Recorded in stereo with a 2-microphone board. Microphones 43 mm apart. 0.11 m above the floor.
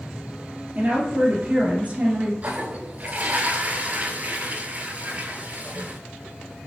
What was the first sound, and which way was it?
A woman speaking, 35° right (ahead or behind).